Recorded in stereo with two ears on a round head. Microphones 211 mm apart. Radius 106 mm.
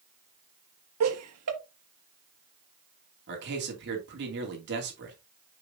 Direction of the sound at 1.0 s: 70° right (ahead or behind).